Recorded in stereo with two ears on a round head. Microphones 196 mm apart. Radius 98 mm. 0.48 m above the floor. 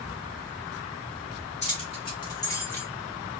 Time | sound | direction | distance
1.6 | keys jangling | 30° left (ahead or behind) | 1.7 m